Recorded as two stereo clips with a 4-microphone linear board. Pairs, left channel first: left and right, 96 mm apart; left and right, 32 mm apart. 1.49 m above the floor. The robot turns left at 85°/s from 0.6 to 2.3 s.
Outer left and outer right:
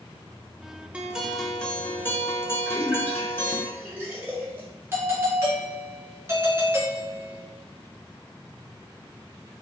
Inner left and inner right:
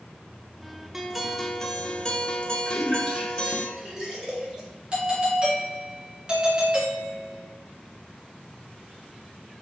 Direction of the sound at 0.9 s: 15° right (ahead or behind).